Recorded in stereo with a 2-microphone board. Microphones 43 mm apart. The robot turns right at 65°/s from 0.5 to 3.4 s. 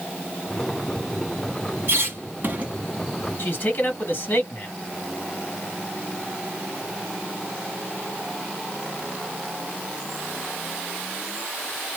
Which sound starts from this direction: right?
A squeak, at 1.9 s.